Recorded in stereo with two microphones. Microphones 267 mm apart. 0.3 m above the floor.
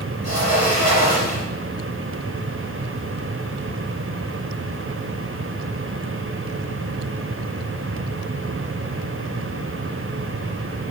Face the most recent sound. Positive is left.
turn(degrees=65)  # may be behind; listen again after turning